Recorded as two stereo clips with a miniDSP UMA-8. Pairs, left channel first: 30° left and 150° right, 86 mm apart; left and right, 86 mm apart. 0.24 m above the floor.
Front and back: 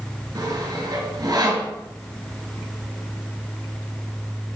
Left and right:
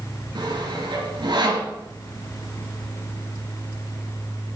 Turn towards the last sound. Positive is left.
turn(degrees=-115)